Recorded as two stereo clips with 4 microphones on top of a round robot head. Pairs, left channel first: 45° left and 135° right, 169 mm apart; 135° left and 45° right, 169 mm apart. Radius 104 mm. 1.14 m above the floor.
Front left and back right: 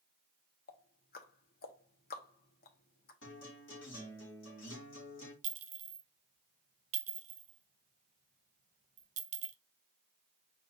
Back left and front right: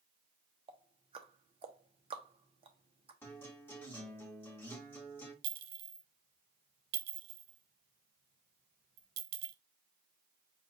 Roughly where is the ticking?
Ahead.